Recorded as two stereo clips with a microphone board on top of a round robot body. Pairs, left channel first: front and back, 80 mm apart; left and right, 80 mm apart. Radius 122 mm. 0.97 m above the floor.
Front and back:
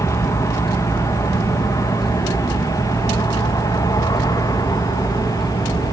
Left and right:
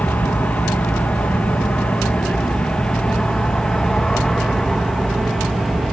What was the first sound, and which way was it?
An aircraft, 25° left.